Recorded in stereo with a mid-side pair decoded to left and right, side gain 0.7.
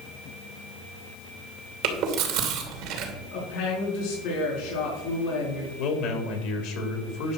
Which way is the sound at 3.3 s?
70° left.